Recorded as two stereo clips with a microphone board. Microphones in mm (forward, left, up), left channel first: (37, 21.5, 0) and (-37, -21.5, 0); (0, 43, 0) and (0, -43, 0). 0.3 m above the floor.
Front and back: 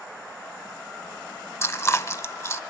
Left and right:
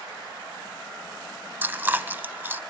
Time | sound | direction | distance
1.6 | chewing | 25° right | 0.6 m